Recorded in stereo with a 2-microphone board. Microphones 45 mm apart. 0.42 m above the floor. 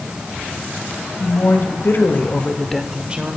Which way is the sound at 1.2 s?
70° left (ahead or behind).